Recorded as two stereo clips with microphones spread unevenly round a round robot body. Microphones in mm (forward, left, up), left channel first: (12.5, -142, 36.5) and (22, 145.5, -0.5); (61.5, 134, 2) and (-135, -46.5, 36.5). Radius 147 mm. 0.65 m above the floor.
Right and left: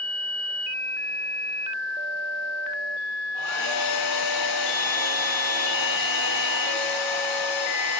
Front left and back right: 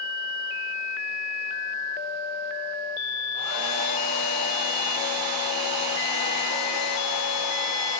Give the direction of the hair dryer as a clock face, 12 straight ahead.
3 o'clock.